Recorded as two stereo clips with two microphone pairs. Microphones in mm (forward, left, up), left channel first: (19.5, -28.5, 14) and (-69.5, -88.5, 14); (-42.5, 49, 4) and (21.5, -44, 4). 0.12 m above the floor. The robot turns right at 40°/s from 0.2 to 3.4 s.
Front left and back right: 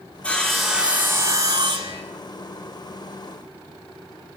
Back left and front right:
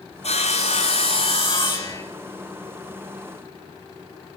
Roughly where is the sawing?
Left.